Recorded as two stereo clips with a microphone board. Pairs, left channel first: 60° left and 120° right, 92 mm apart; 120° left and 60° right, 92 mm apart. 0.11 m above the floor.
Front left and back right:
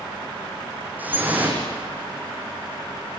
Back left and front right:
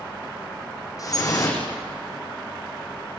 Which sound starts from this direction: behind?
Dripping, at 1.0 s.